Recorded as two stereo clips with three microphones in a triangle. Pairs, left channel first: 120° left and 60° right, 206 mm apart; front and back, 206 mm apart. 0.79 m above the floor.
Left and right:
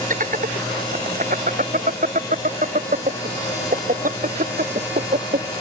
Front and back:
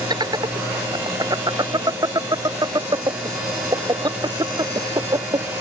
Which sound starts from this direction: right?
Laughter, at 0.1 s.